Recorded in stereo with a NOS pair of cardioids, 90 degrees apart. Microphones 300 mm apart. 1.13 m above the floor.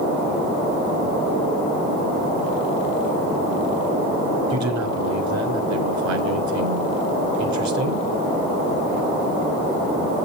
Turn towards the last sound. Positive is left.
turn(degrees=-65)